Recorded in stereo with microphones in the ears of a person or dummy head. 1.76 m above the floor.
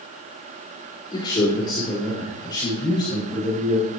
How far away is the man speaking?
About 5.5 m.